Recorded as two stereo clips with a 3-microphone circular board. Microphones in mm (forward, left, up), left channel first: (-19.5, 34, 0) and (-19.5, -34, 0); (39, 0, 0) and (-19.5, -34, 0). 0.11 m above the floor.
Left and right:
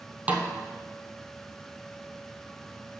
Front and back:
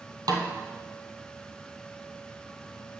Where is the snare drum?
160° right, 1.3 m.